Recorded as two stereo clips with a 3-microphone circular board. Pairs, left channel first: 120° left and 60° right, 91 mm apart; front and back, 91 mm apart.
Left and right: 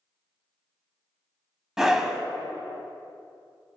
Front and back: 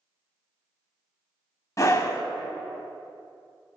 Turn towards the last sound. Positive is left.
turn(degrees=20)